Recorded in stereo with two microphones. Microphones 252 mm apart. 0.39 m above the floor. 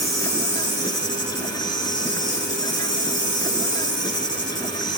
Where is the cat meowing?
No cat meowing in this recording.